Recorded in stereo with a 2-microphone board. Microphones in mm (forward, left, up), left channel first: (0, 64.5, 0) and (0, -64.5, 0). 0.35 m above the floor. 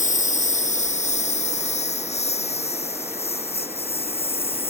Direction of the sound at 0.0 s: 75° left (ahead or behind).